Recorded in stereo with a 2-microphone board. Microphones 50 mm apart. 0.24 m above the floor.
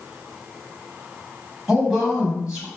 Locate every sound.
1.7 s a woman speaking: 15° right (ahead or behind), 1.1 m